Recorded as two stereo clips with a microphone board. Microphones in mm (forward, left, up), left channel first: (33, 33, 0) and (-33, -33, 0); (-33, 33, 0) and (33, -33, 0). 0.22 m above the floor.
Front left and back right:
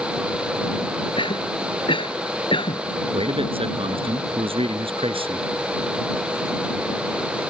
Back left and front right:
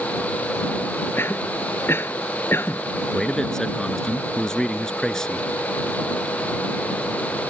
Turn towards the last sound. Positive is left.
turn(degrees=-140)